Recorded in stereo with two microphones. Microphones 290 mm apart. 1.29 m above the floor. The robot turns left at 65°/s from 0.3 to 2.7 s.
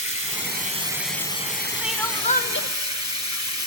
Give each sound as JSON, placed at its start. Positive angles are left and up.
{"t": 0.0, "sound": "running water", "azimuth_deg": -130, "distance_m": 3.0}
{"t": 1.8, "sound": "crying", "azimuth_deg": -175, "distance_m": 0.7}